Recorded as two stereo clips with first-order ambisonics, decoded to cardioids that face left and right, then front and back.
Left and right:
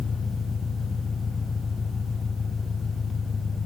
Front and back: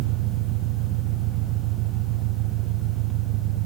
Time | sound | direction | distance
0.0 | an engine running | 165° left | ?